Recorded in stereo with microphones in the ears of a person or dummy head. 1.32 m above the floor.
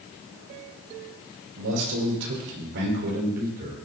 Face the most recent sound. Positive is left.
turn(degrees=-45)  # may be behind; listen again after turning